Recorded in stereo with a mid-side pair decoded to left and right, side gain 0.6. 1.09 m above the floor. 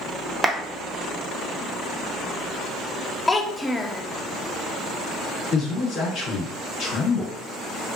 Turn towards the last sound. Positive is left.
turn(degrees=55)